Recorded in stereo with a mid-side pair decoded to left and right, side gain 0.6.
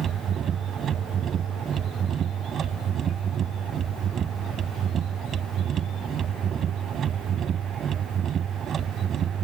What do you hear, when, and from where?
0.0 s a machine running: 45° right